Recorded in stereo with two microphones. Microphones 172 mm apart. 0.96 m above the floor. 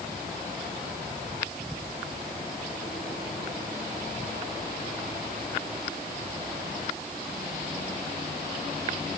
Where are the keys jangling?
I don't hear keys jangling.